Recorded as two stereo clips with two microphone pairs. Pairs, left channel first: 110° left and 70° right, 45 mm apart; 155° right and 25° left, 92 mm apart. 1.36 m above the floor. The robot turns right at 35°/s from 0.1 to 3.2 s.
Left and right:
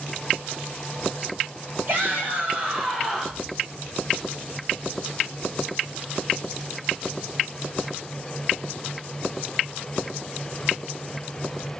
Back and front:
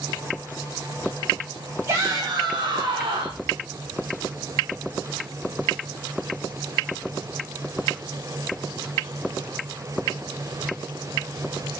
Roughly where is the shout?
Ahead right.